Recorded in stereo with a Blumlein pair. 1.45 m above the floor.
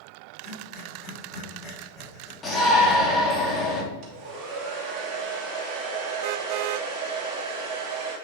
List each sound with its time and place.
0.4 s breathing: 20° left, 4.5 m
2.4 s a shout: 20° left, 3 m
4.0 s a hair dryer: 35° right, 3 m